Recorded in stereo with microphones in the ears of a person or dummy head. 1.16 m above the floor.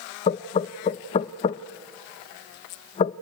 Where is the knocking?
30° left (ahead or behind), 0.5 m.